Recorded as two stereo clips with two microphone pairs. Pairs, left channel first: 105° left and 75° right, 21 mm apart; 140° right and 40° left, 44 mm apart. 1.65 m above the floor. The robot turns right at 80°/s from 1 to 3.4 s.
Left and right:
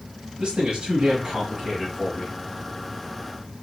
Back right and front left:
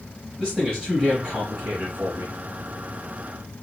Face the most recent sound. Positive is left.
turn(degrees=160)